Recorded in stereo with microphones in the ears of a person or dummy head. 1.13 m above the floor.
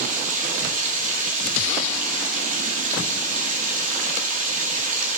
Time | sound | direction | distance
0.0 | running water | 45° right (ahead or behind) | 2 m